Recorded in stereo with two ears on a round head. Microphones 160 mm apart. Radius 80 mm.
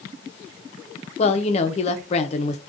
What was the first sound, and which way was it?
A woman speaking, 35° left (ahead or behind).